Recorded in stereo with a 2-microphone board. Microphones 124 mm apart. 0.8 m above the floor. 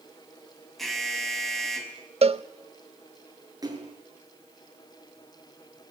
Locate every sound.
0.8 s an alarm: centre (ahead or behind), 4.5 m
2.2 s a cowbell: 55° right (ahead or behind), 0.8 m
3.6 s a splash: 30° right (ahead or behind), 7 m